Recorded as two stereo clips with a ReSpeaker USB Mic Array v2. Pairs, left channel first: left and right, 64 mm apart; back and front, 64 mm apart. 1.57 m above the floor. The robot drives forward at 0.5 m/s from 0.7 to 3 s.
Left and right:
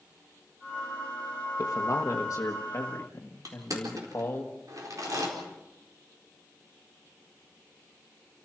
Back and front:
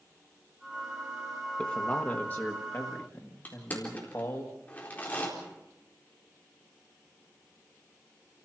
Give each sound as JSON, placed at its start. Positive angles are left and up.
{"t": 1.6, "sound": "a man speaking", "azimuth_deg": 110, "distance_m": 1.2}
{"t": 3.5, "sound": "crushing", "azimuth_deg": -115, "distance_m": 4.0}